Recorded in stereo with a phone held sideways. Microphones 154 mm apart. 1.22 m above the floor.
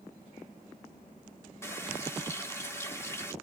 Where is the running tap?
15° left (ahead or behind), 1.1 m.